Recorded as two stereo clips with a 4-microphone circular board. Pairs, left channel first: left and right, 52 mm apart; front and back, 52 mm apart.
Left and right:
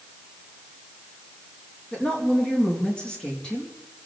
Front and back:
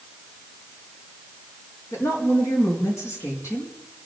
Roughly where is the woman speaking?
Ahead.